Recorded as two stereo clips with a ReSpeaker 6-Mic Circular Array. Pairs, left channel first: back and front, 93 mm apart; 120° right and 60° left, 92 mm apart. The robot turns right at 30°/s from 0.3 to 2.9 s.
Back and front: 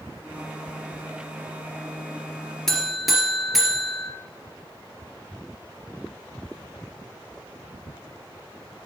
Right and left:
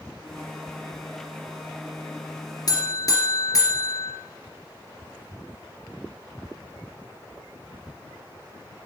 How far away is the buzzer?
About 2.5 m.